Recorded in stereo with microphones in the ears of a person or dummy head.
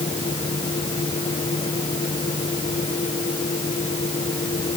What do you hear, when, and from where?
0.0 s a fan: 30° left (ahead or behind)